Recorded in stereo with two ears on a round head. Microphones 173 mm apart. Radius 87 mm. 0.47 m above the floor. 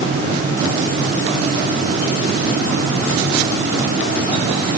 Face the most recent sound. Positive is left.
No sound to turn to.